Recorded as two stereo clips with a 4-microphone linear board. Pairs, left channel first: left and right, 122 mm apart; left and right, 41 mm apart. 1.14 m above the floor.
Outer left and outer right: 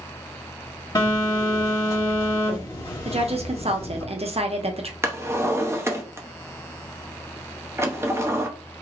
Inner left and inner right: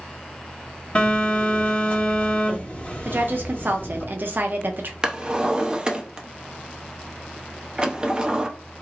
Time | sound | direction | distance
0.9 | a phone buzzing | 30° left (ahead or behind) | 1.7 m
3.0 | a woman speaking | 55° right (ahead or behind) | 0.6 m
5.0 | a drawer | 20° right (ahead or behind) | 0.5 m